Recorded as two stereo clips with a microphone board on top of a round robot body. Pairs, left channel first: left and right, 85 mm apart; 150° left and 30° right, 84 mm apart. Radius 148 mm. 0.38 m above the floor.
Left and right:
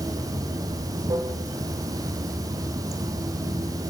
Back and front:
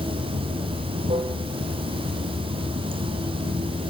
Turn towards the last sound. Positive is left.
turn(degrees=-40)